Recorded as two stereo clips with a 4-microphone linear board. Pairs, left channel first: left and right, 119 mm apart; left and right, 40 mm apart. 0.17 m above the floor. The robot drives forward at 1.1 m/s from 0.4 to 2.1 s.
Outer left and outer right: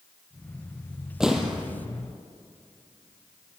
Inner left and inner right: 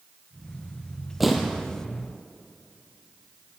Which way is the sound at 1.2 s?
5° right (ahead or behind).